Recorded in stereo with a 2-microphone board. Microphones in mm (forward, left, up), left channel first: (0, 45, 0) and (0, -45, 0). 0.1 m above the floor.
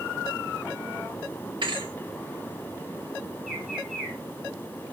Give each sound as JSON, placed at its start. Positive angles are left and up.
{"t": 1.6, "sound": "a thud", "side_deg": -55, "distance_m": 2.0}
{"t": 3.5, "sound": "a bird", "side_deg": 0, "distance_m": 3.5}